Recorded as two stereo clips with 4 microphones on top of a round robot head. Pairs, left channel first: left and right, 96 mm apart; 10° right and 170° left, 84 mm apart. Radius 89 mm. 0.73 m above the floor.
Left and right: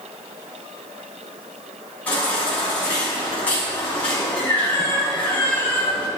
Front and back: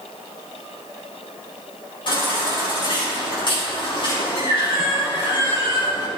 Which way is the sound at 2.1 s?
10° left.